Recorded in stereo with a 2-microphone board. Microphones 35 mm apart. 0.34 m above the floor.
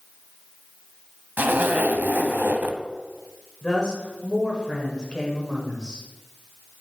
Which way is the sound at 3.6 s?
25° left (ahead or behind).